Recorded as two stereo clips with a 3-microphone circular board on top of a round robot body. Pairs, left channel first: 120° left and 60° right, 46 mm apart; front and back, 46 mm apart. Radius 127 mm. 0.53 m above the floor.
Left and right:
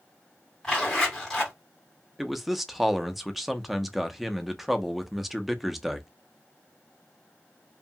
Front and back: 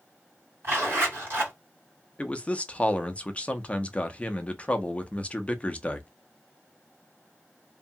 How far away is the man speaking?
About 0.6 m.